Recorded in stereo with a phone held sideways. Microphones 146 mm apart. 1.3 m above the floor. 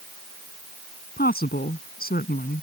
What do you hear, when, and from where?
1.2 s a woman speaking: 80° left